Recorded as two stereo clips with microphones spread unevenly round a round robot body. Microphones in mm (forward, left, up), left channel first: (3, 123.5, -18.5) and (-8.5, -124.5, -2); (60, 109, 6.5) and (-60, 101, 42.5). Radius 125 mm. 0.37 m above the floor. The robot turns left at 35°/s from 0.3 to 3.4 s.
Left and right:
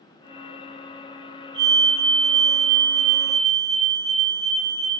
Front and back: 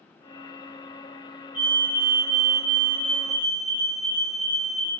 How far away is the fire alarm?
About 4.5 m.